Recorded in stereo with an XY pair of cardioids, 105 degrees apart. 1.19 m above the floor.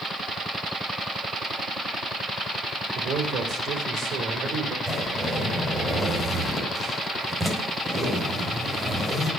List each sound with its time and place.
3.0 s a man speaking: 65° right, 3.5 m
4.9 s a zipper: 10° right, 4.5 m